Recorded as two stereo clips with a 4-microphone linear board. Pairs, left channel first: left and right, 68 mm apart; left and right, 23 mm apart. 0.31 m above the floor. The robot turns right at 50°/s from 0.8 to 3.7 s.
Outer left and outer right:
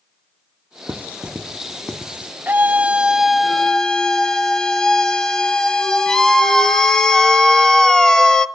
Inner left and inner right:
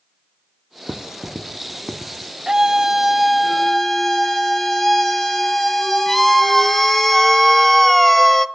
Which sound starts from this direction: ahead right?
A scream, at 2.5 s.